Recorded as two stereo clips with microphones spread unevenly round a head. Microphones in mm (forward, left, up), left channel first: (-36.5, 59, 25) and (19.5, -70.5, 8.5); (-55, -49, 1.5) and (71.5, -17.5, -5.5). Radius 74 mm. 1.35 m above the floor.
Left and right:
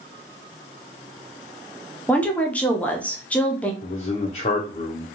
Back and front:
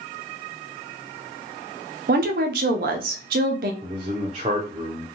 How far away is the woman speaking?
About 0.5 m.